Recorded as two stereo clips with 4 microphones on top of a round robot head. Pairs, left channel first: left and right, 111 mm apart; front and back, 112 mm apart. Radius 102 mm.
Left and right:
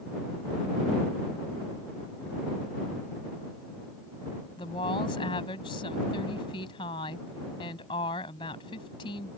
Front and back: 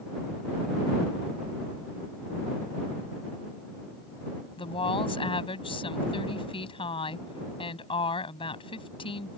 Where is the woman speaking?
35° left.